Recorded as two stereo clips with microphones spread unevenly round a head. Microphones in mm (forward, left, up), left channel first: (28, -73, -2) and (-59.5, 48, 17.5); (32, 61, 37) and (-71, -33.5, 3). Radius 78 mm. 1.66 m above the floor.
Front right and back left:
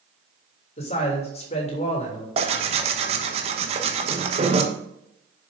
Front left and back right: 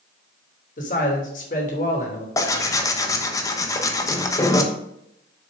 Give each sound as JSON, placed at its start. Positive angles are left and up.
{"t": 0.8, "sound": "a man speaking", "azimuth_deg": 0, "distance_m": 3.0}
{"t": 2.4, "sound": "tearing paper", "azimuth_deg": 95, "distance_m": 1.1}